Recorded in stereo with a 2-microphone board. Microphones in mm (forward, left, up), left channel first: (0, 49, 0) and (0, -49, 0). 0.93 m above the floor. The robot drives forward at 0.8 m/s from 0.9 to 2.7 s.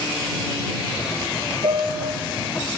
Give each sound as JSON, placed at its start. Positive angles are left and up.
{"t": 1.6, "sound": "a piano", "side_deg": -65, "distance_m": 3.5}